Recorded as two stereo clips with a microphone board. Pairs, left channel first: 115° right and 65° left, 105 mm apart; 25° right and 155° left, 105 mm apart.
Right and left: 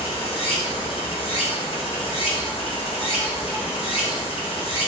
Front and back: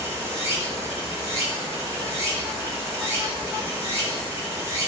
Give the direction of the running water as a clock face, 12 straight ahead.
5 o'clock.